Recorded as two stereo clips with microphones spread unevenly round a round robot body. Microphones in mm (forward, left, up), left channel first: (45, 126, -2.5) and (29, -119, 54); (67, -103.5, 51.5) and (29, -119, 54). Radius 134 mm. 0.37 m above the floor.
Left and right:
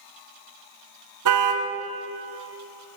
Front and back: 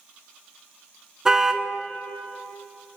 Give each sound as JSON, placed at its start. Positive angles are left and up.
{"t": 1.2, "sound": "a car horn", "azimuth_deg": -80, "distance_m": 2.5}